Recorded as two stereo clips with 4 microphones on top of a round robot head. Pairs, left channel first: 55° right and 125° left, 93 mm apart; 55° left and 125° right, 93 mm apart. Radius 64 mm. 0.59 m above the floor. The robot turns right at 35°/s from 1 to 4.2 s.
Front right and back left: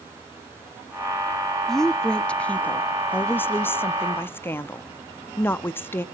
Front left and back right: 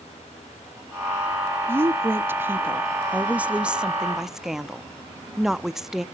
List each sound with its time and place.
1.7 s a woman speaking: 135° right, 0.6 m; by 6.0 s 45° right, 0.6 m